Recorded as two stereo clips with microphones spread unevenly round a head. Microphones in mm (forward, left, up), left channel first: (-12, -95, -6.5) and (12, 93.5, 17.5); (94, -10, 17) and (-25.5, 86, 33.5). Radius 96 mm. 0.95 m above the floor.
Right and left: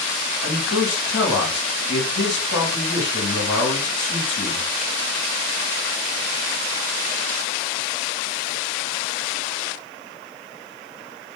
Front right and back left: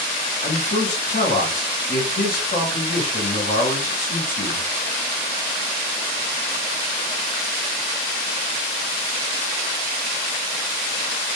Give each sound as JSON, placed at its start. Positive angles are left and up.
{"t": 0.4, "sound": "a man speaking", "azimuth_deg": -70, "distance_m": 1.8}